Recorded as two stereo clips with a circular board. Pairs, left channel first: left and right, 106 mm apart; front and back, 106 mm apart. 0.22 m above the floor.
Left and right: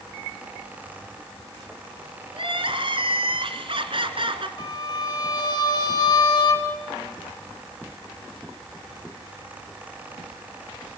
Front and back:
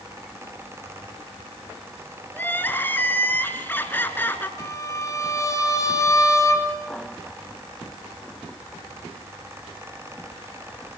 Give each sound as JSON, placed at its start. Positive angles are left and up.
{"t": 2.3, "sound": "crying", "azimuth_deg": -70, "distance_m": 2.0}
{"t": 4.6, "sound": "a violin", "azimuth_deg": 50, "distance_m": 3.5}